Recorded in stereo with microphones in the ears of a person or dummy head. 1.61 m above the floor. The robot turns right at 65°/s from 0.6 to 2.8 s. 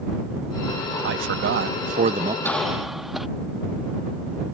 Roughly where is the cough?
Centre.